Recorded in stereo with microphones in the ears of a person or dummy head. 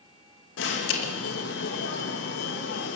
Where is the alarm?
70° left (ahead or behind), 2.5 m.